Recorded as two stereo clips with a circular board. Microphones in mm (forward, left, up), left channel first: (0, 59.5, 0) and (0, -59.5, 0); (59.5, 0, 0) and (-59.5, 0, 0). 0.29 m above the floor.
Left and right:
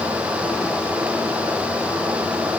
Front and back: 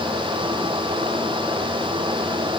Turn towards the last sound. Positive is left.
No sound to turn to.